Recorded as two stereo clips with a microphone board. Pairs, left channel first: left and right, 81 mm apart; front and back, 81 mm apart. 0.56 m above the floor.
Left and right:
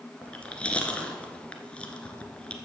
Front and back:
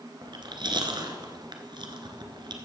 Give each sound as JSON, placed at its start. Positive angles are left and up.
{"t": 0.2, "sound": "chewing", "azimuth_deg": 165, "distance_m": 1.3}